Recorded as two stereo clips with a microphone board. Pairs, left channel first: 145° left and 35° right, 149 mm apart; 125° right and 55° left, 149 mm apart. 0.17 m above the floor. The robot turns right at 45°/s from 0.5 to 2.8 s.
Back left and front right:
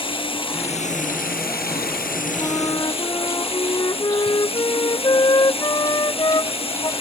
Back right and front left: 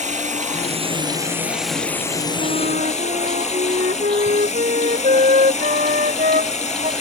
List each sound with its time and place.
0.0 s running water: 90° left; by 7.0 s 165° right
2.4 s a flute: 65° left; by 6.9 s 85° left